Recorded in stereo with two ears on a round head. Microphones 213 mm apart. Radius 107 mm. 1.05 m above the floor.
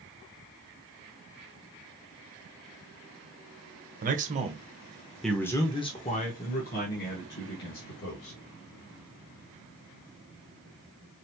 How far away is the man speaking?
About 1.2 m.